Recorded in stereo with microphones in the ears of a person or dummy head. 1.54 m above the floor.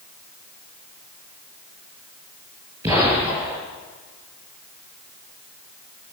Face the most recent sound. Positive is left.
turn(degrees=-20)  # may be behind; listen again after turning